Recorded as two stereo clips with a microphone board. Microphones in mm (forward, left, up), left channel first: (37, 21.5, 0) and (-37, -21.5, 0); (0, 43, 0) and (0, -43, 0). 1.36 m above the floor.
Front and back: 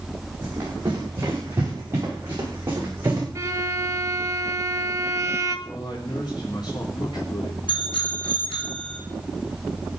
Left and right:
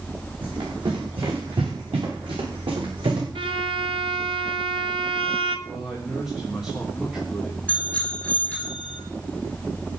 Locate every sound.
0.4 s running footsteps: 90° right, 9.5 m
3.4 s a violin: 95° right, 1.6 m
5.7 s a man speaking: 5° right, 3 m
7.7 s a bicycle bell: 15° left, 6.5 m